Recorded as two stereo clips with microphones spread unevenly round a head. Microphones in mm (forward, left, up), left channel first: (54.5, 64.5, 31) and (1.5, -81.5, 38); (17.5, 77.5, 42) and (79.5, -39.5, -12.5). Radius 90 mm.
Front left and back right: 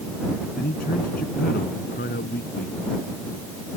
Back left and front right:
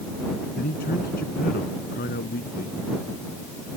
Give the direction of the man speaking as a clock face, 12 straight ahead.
8 o'clock.